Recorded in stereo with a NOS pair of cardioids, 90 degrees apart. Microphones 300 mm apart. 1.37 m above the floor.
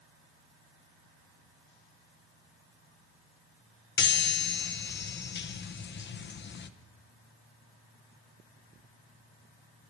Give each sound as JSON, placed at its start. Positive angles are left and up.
{"t": 4.0, "sound": "a chime", "azimuth_deg": 35, "distance_m": 0.9}